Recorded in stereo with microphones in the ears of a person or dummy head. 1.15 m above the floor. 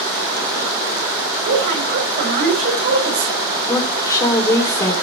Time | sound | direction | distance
1.4 | a woman speaking | 45° right (ahead or behind) | 5 m
3.7 | a woman speaking | 15° left (ahead or behind) | 3 m